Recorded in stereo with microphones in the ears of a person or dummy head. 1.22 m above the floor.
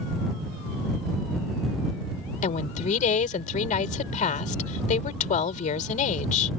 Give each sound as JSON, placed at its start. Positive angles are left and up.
{"t": 2.4, "sound": "a woman speaking", "side_deg": 40}